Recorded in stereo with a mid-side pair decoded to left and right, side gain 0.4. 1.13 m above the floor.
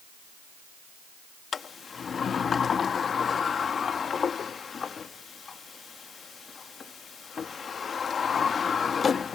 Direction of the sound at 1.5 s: 50° left.